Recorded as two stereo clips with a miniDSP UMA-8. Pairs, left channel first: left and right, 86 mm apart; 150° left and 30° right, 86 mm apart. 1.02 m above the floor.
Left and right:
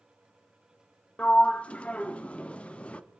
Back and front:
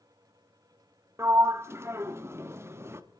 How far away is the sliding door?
About 0.7 m.